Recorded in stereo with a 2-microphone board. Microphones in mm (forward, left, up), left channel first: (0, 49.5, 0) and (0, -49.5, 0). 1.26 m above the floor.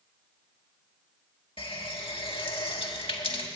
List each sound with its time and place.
1.6 s a running tap: 70° left (ahead or behind), 1.3 m